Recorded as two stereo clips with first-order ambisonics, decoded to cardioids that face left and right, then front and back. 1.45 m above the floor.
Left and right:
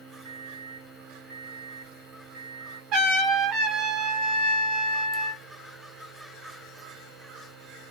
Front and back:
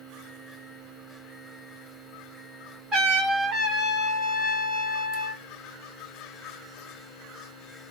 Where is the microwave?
80° right, 1.2 m.